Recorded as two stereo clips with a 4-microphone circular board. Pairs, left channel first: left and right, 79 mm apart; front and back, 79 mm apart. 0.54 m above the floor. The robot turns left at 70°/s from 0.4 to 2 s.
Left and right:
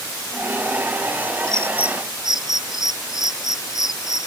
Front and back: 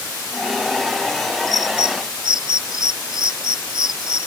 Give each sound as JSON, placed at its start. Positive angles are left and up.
{"t": 1.5, "sound": "a bird", "azimuth_deg": -135}